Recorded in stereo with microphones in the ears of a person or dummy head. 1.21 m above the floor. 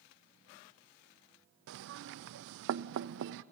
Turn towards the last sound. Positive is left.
turn(degrees=-65)  # may be behind; listen again after turning